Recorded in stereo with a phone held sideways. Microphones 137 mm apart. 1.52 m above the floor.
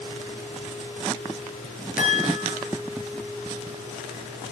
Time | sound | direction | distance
2.0 | a chime | 80° left | 9 m